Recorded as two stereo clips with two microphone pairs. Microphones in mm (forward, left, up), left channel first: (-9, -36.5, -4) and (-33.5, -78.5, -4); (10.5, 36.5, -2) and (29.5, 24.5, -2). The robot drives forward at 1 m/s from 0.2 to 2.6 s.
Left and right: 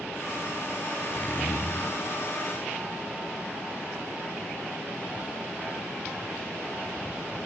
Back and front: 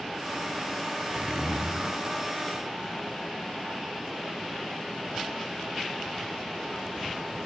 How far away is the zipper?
About 2 m.